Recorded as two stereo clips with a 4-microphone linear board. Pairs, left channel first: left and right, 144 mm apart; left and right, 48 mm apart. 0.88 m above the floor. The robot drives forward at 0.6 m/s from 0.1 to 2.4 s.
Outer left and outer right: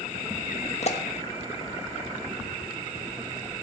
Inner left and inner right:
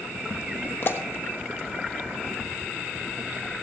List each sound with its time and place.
0.8 s a pop: 50° left (ahead or behind), 1.3 m